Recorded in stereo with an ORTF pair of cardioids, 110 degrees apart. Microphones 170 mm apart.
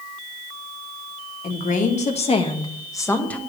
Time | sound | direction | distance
1.4 | a woman speaking | 55° left | 2 m